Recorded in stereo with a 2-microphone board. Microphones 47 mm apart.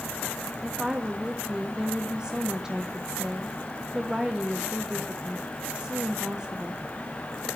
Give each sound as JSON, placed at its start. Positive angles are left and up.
{"t": 0.6, "sound": "a woman speaking", "side_deg": -15, "distance_m": 1.2}